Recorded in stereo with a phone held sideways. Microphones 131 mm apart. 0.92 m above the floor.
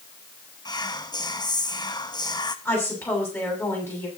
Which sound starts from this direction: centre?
A woman speaking, at 2.6 s.